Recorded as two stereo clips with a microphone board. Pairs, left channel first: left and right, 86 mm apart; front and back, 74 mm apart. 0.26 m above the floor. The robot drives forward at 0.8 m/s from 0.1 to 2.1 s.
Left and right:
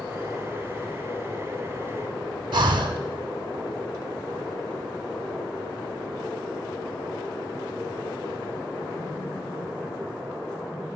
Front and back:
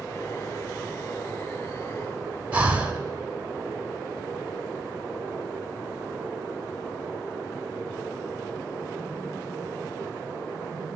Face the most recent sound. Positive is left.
turn(degrees=-115)